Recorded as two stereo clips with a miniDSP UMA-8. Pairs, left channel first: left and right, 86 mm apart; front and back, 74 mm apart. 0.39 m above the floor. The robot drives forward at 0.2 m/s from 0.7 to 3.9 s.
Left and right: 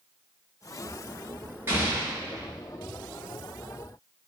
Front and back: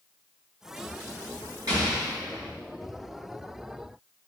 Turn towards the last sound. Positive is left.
turn(degrees=-155)